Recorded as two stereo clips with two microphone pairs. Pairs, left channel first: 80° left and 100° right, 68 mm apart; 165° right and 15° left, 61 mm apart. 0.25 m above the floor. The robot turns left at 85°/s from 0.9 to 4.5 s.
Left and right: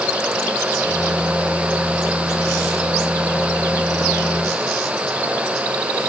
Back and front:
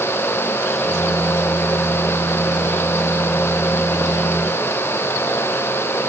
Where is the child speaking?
No child speaking in this recording.